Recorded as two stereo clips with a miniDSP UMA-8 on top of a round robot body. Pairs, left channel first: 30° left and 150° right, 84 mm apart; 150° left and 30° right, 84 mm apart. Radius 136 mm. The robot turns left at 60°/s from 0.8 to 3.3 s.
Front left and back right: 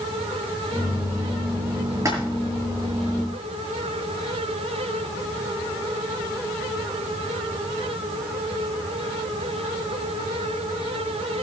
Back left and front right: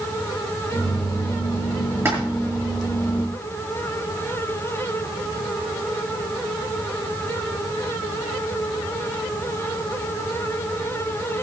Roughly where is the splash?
Right.